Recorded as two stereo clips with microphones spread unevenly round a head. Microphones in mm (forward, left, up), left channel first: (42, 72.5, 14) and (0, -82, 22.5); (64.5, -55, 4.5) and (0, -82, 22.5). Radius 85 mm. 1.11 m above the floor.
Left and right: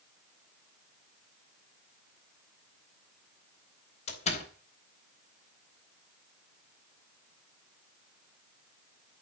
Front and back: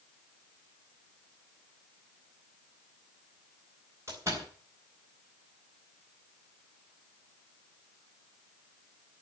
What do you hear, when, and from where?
4.1 s a door slam: 130° left, 4 m